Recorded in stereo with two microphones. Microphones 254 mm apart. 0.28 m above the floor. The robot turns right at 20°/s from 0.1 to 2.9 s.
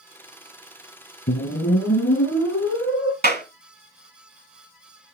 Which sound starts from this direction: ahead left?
A whoosh, at 1.3 s.